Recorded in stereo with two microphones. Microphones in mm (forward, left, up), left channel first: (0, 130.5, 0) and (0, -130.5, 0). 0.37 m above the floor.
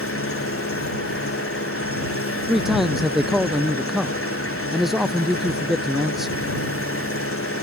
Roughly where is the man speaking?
Centre.